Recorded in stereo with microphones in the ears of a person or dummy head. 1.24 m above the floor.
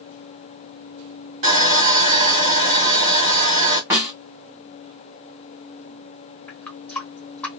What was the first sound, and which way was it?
Sawing, 40° right (ahead or behind).